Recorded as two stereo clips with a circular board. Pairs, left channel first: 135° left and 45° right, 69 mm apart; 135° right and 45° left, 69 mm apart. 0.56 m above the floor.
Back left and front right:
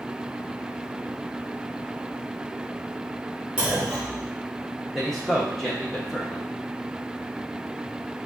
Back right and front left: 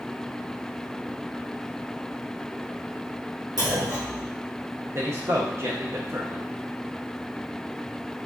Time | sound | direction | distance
3.6 | a clunk | 30° left | 2.5 m
5.0 | a man speaking | 50° left | 0.8 m